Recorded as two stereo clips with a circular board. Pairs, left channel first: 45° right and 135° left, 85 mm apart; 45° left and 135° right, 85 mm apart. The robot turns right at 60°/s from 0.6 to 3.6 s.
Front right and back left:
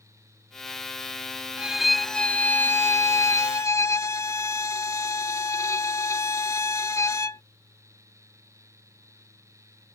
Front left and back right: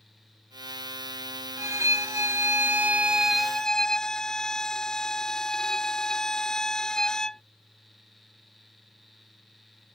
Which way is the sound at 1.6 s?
155° right.